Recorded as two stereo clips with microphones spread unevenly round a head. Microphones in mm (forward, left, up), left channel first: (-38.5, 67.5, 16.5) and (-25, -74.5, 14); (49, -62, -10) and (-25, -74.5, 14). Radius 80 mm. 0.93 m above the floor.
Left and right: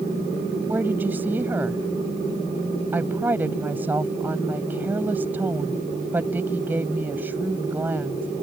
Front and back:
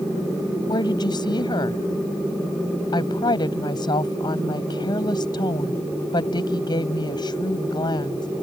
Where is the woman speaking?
5° right.